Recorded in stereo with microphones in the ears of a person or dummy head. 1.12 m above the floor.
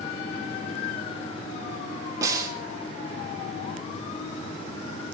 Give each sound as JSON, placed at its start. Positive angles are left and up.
{"t": 2.2, "sound": "a snare drum", "side_deg": -20, "distance_m": 3.0}